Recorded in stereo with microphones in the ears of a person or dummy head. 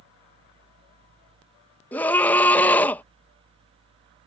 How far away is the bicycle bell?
I don't hear a bicycle bell.